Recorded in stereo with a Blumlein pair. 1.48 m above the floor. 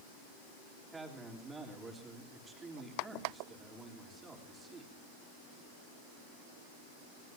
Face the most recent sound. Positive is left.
turn(degrees=-10)